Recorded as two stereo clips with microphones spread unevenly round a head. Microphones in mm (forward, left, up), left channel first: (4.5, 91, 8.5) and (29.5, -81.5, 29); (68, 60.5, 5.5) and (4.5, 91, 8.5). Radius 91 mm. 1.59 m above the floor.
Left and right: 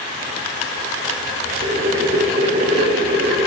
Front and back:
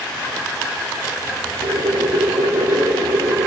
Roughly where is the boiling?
Behind right.